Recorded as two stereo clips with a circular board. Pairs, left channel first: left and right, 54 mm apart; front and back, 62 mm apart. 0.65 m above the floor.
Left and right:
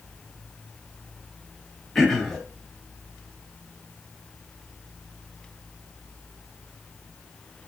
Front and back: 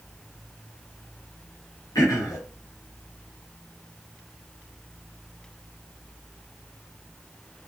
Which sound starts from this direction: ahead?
Throat clearing, at 1.9 s.